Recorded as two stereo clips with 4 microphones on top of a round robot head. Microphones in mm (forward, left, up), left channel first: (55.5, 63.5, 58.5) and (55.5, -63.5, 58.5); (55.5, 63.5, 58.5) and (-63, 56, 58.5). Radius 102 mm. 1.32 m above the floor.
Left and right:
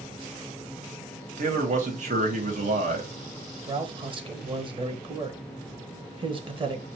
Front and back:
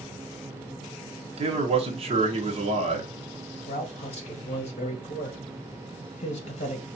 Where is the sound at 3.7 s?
40° right, 1.2 m.